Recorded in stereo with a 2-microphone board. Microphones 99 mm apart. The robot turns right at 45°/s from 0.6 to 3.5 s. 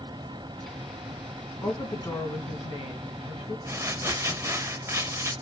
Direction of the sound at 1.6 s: 25° left.